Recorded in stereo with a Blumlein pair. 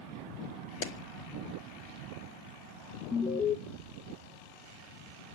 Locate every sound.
0.8 s a clap: 50° left, 1.4 m
3.1 s an alarm: 15° left, 1.0 m